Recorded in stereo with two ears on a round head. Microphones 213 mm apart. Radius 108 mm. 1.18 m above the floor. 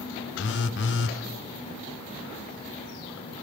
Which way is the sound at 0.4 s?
50° left (ahead or behind).